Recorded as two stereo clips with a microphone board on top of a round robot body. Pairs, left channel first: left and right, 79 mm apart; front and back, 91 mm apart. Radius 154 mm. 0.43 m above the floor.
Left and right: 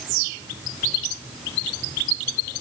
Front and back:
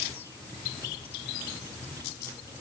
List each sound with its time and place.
Only background noise.